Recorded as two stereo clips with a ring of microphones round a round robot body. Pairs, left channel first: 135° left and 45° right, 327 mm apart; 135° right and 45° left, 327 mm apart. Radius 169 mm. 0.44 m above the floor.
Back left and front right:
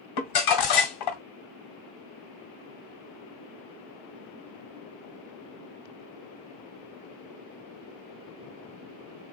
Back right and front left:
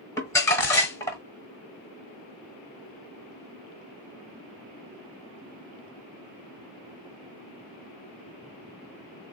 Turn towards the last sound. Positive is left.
turn(degrees=145)